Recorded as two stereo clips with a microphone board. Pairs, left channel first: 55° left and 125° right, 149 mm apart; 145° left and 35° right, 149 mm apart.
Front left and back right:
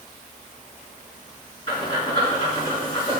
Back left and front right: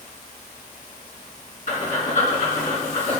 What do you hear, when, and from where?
1.7 s breathing: 110° left, 5 m